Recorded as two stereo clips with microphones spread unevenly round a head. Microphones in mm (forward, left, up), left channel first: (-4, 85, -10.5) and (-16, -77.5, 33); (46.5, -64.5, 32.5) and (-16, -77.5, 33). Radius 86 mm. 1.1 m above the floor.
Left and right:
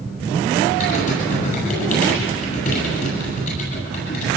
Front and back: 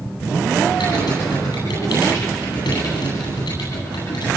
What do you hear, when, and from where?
0.8 s typing on a keyboard: 40° left, 9.5 m